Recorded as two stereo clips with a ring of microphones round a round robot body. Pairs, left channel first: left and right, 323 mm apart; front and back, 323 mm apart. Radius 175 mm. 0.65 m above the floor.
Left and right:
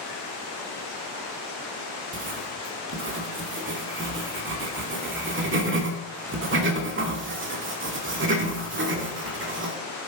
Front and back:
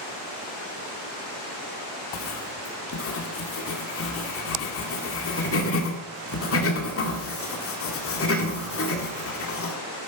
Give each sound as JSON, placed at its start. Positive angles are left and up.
{"t": 2.1, "sound": "writing", "azimuth_deg": -40, "distance_m": 2.0}